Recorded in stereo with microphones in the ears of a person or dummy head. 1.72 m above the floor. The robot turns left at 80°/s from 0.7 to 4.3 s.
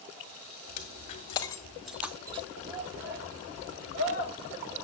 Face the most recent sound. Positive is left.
turn(degrees=75)  # may be behind; listen again after turning